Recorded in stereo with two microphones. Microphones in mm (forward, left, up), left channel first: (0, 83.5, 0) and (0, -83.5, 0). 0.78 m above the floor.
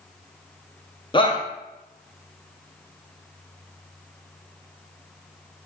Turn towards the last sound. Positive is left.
turn(degrees=30)  # may be behind; listen again after turning